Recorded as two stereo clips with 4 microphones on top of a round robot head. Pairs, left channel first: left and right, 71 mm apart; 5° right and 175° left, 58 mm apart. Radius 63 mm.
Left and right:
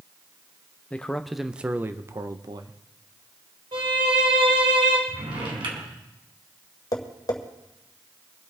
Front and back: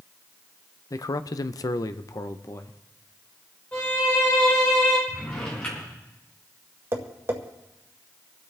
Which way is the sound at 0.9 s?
15° left.